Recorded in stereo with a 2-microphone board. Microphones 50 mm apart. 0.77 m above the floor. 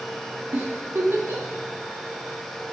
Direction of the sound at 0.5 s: 55° right (ahead or behind).